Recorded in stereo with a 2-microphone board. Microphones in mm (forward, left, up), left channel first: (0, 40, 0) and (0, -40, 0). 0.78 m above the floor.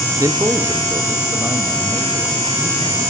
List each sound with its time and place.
0.2 s a man speaking: 40° right (ahead or behind), 1.4 m; by 3.0 s 20° right (ahead or behind), 5.5 m